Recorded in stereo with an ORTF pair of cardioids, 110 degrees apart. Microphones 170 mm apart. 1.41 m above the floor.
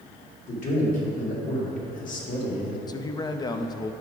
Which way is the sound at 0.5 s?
55° left.